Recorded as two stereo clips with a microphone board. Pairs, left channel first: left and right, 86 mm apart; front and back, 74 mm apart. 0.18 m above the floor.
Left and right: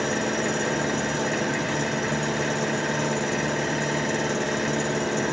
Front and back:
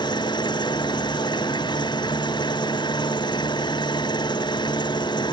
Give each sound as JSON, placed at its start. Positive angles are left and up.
{"t": 0.0, "sound": "an engine running", "azimuth_deg": 0}